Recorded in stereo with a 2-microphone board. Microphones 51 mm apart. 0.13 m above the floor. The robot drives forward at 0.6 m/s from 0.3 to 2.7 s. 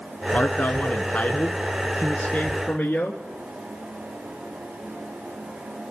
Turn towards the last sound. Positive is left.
turn(degrees=20)  # may be behind; listen again after turning